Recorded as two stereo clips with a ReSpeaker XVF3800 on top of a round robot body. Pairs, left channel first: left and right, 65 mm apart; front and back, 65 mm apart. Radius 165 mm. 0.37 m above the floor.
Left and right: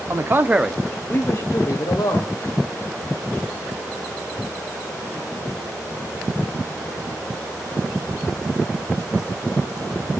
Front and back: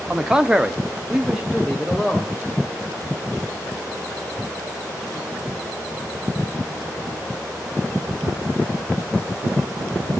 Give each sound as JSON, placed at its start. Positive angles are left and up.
{"t": 0.1, "sound": "a man speaking", "azimuth_deg": -100, "distance_m": 1.5}